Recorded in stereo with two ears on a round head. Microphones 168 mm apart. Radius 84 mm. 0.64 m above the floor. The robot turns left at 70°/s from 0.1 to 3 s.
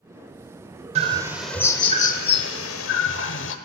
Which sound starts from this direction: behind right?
A bird, at 0.9 s.